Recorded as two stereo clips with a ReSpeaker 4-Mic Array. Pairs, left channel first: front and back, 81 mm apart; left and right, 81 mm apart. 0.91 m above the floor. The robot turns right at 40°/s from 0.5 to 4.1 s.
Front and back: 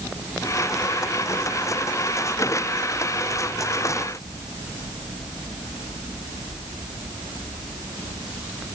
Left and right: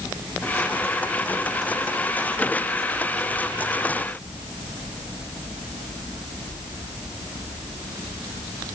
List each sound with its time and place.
Only background noise.